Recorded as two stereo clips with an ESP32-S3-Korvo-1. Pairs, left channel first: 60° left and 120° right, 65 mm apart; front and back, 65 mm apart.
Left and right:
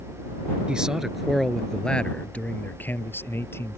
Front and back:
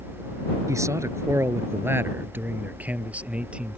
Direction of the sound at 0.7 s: 165° left.